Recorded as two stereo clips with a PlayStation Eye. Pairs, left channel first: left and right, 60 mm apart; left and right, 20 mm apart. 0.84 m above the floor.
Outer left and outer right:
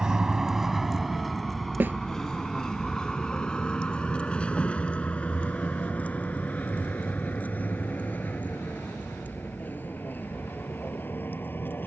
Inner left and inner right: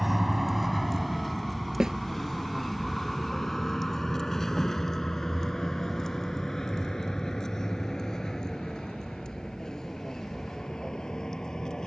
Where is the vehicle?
10° right (ahead or behind); by 11.9 s 35° left (ahead or behind).